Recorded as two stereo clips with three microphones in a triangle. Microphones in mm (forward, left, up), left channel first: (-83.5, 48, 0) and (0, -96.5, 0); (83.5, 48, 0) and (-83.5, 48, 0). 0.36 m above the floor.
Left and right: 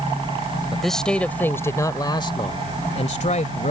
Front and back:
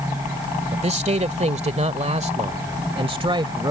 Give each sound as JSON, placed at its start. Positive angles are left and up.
{"t": 0.7, "sound": "a man speaking", "azimuth_deg": -150}